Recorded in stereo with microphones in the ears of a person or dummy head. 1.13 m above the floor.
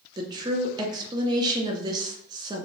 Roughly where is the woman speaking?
Right.